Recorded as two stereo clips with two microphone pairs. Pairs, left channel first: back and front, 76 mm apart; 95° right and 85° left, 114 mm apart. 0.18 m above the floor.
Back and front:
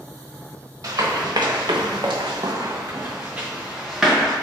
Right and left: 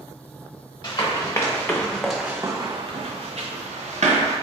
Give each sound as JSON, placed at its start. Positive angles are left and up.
{"t": 0.8, "sound": "running footsteps", "azimuth_deg": -40, "distance_m": 0.9}